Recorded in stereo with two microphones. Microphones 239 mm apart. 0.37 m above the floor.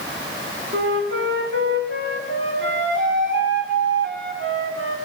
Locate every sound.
0.7 s a flute: 55° right (ahead or behind), 1.1 m